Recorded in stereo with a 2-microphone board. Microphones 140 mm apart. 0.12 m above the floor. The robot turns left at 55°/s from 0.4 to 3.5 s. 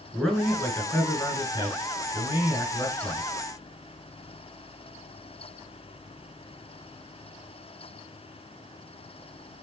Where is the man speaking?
Straight behind, 1.4 m; by 3.2 s 20° left, 1.4 m.